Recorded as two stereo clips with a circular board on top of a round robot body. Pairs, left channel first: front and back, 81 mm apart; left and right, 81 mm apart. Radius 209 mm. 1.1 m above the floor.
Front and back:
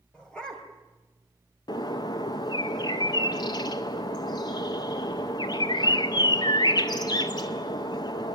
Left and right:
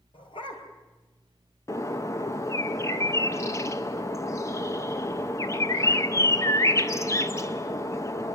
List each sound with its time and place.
0.1 s a dog barking: 80° left, 3.5 m
1.7 s a bird: 35° left, 0.6 m